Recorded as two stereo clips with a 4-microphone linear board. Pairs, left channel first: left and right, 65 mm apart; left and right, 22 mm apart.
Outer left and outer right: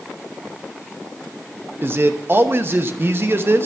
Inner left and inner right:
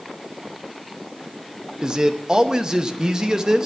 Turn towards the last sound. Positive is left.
turn(degrees=-35)  # may be behind; listen again after turning